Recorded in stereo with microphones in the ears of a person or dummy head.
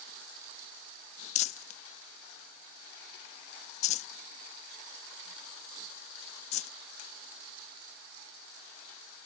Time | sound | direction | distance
1.4 | crumpling | 45° left (ahead or behind) | ?